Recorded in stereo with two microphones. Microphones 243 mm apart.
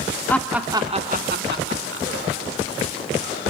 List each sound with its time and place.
0.3 s laughter: 10° left (ahead or behind), 0.9 m; by 2.1 s 55° right (ahead or behind), 1.7 m